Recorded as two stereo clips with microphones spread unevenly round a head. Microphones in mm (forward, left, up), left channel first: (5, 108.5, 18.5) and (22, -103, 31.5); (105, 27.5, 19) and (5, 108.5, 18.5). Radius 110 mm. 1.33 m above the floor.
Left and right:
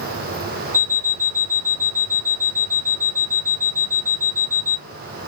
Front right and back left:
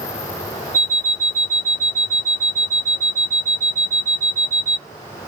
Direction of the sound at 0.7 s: 140° right.